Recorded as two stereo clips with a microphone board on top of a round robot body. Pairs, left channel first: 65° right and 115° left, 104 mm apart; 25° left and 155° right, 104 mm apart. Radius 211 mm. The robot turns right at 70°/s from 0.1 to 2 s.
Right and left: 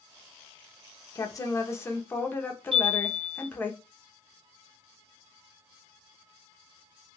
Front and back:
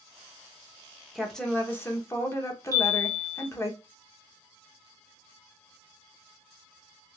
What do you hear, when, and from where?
1.1 s a woman speaking: 70° right, 1.1 m; by 3.7 s 15° right, 1.1 m
2.7 s a chime: 145° left, 1.3 m